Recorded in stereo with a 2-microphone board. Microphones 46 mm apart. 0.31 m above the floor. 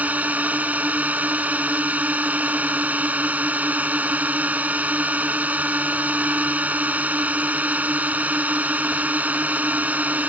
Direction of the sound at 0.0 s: 35° right (ahead or behind).